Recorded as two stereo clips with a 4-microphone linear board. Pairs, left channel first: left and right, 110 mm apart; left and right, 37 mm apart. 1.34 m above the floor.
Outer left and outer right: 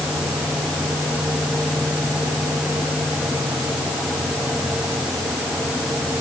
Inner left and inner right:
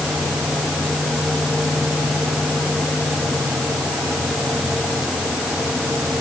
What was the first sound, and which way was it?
Only background noise.